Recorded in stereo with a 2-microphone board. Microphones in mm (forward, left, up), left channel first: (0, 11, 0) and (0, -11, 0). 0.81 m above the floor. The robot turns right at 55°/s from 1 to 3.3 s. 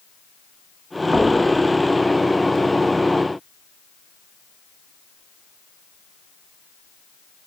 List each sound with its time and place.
1.1 s knocking: 85° right, 4 m; by 1.4 s 80° right, 4 m